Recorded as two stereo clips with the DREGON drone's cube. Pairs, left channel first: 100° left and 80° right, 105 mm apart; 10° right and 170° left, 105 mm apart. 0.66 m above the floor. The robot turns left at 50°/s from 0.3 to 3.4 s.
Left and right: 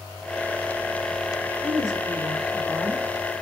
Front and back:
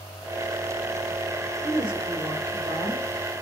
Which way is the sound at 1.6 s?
100° right.